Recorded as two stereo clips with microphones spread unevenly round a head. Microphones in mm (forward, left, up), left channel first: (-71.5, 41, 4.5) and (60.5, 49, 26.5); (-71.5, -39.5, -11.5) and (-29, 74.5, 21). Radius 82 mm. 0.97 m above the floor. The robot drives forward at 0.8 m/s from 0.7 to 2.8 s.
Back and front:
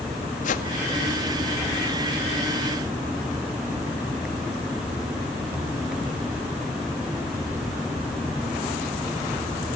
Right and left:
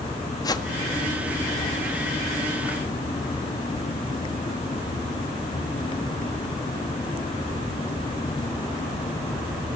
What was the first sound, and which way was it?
A whoosh, 160° right.